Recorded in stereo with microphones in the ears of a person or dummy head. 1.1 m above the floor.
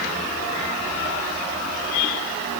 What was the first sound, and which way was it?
Only background noise.